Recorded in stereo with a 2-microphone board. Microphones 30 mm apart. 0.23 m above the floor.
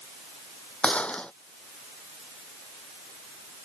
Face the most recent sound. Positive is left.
turn(degrees=40)  # may be behind; listen again after turning